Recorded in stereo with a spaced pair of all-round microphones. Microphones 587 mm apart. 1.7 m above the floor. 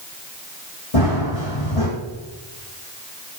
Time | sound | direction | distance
0.9 | running footsteps | 65° left (ahead or behind) | 4 m